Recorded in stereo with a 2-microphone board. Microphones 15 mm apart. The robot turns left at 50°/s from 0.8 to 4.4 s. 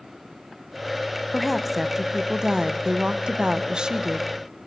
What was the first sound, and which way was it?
A woman speaking, 5° left.